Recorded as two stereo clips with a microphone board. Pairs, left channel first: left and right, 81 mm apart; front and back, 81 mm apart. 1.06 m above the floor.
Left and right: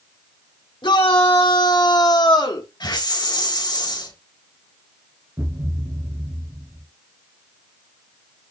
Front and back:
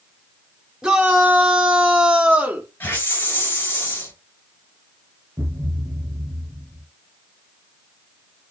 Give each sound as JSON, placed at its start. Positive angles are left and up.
{"t": 0.8, "sound": "a shout", "azimuth_deg": 100, "distance_m": 3.5}
{"t": 2.8, "sound": "a hiss", "azimuth_deg": 65, "distance_m": 5.0}
{"t": 5.4, "sound": "a thud", "azimuth_deg": -135, "distance_m": 2.5}